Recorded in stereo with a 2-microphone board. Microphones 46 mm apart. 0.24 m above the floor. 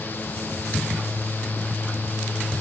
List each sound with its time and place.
Only background noise.